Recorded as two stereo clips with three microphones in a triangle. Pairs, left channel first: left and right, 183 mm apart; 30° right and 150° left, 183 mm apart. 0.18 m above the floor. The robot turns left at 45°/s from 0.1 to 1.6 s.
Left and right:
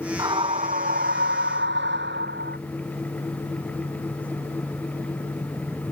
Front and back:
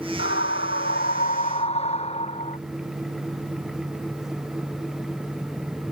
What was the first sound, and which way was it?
A scream, 20° right.